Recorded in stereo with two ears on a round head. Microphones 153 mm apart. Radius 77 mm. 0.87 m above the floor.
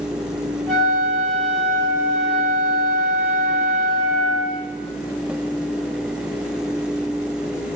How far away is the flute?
About 0.7 m.